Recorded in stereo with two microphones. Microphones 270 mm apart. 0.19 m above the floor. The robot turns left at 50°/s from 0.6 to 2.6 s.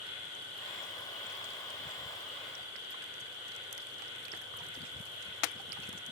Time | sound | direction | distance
0.0 | an insect | 85° left | 3 m